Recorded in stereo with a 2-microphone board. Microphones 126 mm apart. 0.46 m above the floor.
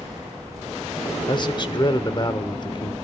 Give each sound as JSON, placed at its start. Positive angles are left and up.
{"t": 1.3, "sound": "a man speaking", "side_deg": 35, "distance_m": 1.0}